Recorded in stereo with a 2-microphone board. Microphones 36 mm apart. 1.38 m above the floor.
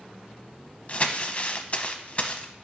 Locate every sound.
0.9 s crumpling: 35° left (ahead or behind), 0.7 m